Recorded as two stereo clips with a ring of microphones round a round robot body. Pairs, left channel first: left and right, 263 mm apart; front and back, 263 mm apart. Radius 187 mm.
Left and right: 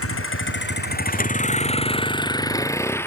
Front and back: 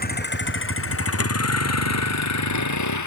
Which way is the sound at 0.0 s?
55° left.